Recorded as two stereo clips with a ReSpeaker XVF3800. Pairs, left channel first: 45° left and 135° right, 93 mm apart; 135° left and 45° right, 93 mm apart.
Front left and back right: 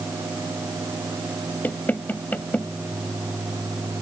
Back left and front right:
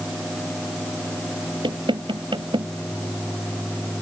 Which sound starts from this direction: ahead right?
Knocking, at 1.6 s.